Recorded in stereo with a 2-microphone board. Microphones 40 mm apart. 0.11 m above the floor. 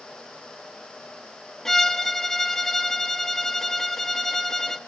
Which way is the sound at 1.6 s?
15° left (ahead or behind).